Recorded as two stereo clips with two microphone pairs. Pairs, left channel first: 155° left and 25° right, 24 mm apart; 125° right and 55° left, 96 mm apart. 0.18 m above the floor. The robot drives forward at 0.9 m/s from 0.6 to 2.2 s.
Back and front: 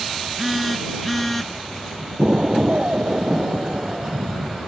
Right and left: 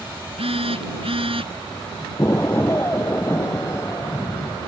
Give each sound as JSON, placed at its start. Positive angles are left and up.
{"t": 0.4, "sound": "a phone buzzing", "azimuth_deg": 65}
{"t": 2.2, "sound": "an explosion", "azimuth_deg": -60}